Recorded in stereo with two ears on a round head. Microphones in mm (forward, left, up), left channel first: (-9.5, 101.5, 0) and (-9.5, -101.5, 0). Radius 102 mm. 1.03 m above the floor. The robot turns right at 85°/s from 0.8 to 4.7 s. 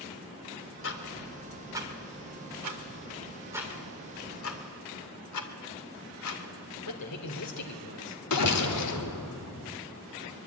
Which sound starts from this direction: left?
Ticking, at 0.8 s.